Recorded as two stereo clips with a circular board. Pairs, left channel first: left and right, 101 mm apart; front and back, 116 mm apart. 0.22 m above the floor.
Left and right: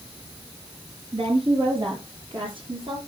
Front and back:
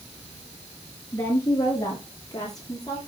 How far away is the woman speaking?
About 5.5 m.